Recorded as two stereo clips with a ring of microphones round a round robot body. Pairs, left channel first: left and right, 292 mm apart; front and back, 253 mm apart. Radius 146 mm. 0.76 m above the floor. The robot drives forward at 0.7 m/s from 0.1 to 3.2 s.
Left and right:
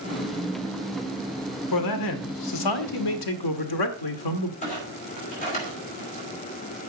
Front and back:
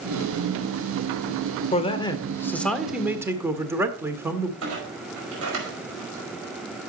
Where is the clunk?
155° left, 5 m.